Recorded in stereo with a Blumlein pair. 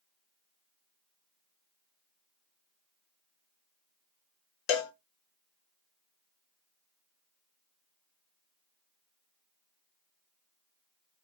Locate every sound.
4.7 s a cowbell: 40° left, 0.6 m